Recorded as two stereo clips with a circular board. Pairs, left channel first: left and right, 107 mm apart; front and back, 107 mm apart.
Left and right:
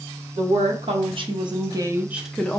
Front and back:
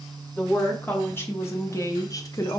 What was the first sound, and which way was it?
A woman speaking, 75° right.